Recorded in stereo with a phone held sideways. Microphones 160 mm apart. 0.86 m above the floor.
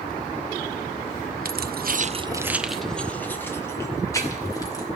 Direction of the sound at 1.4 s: 70° right (ahead or behind).